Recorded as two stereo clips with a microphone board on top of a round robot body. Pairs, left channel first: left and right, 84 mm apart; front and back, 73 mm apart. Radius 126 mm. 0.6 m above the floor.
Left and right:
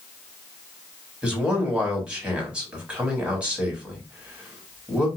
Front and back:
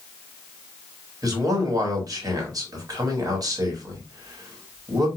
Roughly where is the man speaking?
Behind.